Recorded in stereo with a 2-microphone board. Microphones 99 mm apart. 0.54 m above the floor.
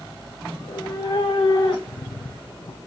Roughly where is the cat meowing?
Left.